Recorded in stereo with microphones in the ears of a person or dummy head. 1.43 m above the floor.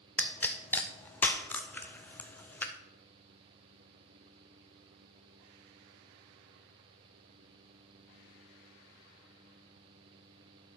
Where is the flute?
No flute in this recording.